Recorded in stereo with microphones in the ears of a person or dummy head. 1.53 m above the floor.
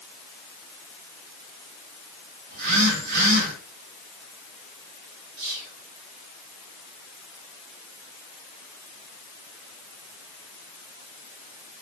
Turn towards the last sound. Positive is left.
turn(degrees=-85)